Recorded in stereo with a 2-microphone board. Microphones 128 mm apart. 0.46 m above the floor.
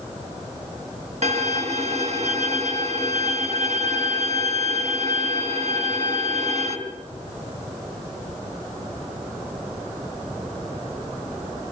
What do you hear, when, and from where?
1.2 s a violin: 60° right (ahead or behind), 3 m